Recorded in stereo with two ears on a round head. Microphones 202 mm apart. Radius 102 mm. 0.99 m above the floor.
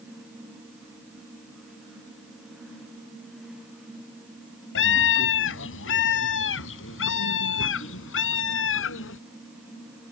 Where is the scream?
60° left (ahead or behind); by 9.2 s 65° left (ahead or behind).